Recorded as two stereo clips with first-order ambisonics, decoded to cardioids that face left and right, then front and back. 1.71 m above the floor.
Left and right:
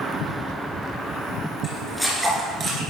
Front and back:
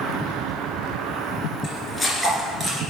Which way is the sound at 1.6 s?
40° left.